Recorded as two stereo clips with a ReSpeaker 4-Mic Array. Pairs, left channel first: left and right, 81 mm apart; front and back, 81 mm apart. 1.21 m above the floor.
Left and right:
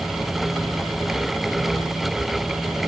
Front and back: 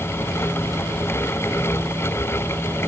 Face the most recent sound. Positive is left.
No sound to turn to.